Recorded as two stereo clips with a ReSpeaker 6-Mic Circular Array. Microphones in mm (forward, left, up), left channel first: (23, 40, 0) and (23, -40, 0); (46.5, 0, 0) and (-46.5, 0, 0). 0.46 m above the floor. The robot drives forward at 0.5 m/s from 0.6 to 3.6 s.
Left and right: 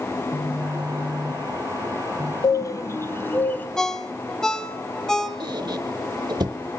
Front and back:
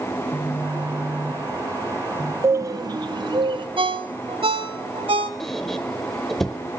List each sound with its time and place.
0.1 s a phone buzzing: 105° right, 2 m; by 2.3 s 125° right, 2.5 m
2.4 s a bird: 125° left, 0.5 m; by 3.7 s 155° left, 0.9 m
3.8 s a ringtone: 170° left, 1.3 m
5.4 s a squeak: 85° right, 1.2 m